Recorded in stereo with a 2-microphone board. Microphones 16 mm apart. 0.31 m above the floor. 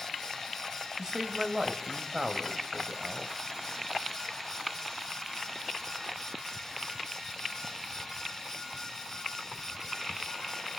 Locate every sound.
1.0 s a man speaking: 45° right (ahead or behind), 1.3 m